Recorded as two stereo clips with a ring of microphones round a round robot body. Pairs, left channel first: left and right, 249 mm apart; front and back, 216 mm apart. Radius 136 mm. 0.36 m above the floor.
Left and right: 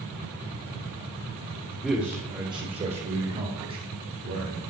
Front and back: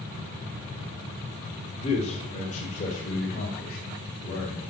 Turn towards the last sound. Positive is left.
turn(degrees=-50)